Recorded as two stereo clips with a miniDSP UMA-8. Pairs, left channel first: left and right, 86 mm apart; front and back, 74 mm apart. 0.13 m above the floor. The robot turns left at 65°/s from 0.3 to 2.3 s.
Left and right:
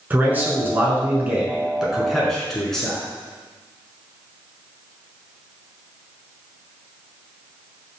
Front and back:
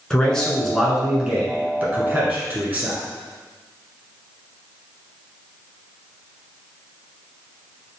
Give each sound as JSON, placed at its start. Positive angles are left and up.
{"t": 0.1, "sound": "a man speaking", "azimuth_deg": -60, "distance_m": 1.2}